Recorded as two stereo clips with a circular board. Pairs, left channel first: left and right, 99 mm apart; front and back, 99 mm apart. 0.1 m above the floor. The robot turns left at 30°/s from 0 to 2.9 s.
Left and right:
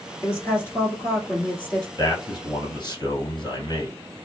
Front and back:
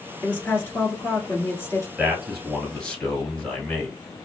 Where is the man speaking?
105° left, 1.5 m; by 4.0 s 75° left, 1.5 m.